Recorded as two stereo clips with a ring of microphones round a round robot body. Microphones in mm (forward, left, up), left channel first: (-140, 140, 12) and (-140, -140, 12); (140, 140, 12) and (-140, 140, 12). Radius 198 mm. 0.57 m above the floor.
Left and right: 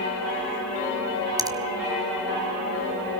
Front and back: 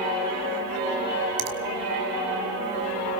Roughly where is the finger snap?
Behind.